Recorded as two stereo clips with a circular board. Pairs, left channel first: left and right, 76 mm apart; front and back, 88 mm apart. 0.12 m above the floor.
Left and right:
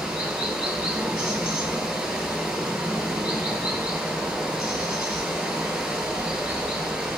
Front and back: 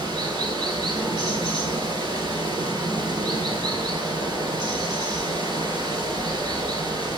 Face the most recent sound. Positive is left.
turn(degrees=-170)